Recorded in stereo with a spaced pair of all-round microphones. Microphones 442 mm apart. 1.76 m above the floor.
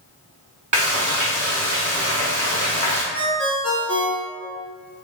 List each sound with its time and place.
0.7 s frying: 45° right (ahead or behind), 1.9 m
3.1 s a ringtone: 30° left (ahead or behind), 1.0 m